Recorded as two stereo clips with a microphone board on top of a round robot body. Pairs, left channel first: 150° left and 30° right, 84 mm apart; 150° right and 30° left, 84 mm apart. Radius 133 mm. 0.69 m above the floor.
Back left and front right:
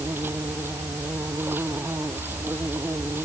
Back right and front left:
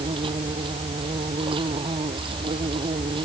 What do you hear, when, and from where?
0.0 s an insect: 35° left